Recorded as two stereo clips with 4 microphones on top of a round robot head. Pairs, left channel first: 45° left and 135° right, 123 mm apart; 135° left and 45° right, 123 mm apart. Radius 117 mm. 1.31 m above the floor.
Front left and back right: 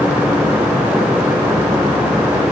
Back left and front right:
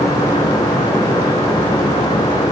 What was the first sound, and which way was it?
Only background noise.